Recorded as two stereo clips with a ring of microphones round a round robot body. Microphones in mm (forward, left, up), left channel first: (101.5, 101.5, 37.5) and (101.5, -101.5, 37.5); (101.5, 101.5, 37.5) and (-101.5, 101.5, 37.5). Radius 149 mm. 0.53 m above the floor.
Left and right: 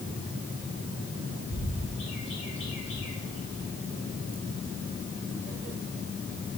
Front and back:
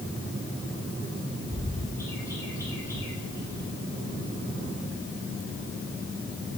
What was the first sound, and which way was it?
A bird, 75° left.